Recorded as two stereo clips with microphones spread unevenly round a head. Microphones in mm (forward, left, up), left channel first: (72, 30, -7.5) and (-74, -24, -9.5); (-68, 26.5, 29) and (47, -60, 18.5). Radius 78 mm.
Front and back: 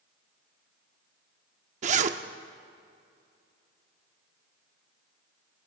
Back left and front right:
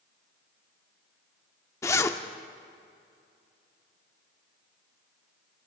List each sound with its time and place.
1.8 s a zipper: 160° right, 0.6 m